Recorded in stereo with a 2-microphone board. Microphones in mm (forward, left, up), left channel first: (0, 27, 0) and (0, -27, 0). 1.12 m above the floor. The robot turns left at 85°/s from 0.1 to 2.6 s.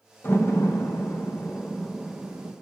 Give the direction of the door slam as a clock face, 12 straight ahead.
7 o'clock.